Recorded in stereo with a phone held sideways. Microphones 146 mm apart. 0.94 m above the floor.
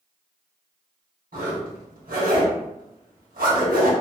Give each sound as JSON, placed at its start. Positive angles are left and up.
{"t": 1.3, "sound": "a zipper", "side_deg": -80, "distance_m": 1.3}